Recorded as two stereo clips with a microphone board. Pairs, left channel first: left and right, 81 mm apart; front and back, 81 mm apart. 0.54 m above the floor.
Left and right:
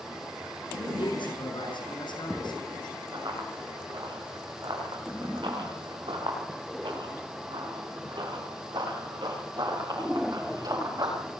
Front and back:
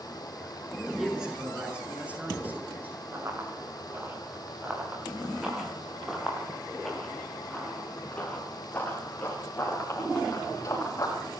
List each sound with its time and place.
1.0 s a man speaking: 95° left, 7 m; by 3.0 s 115° left, 9 m
3.1 s running footsteps: 120° right, 9 m; by 11.2 s 50° right, 10.5 m